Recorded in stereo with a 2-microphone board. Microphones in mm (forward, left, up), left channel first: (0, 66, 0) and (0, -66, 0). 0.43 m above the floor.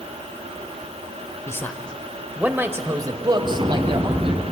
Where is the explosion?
40° right (ahead or behind), 1.9 m.